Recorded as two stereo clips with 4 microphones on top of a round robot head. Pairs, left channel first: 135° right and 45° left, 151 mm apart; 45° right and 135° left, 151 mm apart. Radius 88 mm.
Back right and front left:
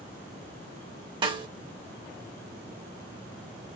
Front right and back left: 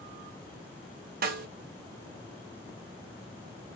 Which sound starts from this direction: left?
A snare drum, at 1.2 s.